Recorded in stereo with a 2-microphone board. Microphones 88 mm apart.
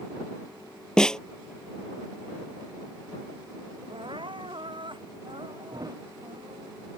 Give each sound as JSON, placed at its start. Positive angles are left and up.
{"t": 1.0, "sound": "a snare drum", "side_deg": 10}
{"t": 3.9, "sound": "crying", "side_deg": -70}
{"t": 5.7, "sound": "a thud", "side_deg": -45}